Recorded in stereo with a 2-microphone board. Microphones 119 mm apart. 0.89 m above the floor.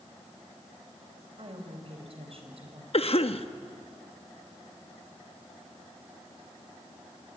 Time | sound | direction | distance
1.4 | a woman speaking | 55° right (ahead or behind) | 4.5 m
2.9 | a cough | 55° left (ahead or behind) | 1.1 m